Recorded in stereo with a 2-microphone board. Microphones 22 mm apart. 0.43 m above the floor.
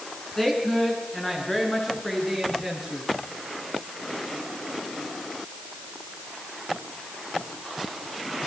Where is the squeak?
I don't hear a squeak.